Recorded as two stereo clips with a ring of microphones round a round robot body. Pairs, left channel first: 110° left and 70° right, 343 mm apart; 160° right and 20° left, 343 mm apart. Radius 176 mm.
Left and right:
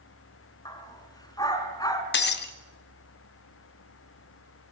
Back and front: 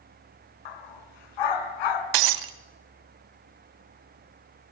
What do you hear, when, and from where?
0.7 s a dog barking: 170° right, 2.0 m
2.1 s breaking glass: 50° left, 1.1 m